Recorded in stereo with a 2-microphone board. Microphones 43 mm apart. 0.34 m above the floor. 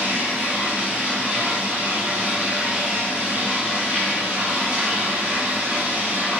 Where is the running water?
50° right (ahead or behind), 1.6 m.